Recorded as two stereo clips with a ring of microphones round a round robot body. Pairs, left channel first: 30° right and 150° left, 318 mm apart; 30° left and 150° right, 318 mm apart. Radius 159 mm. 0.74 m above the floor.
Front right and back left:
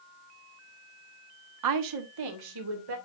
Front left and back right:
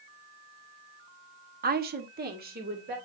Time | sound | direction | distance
1.6 | a woman speaking | 155° left | 1.0 m